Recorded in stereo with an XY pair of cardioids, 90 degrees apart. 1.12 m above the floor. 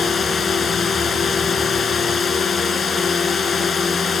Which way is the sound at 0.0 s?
50° left.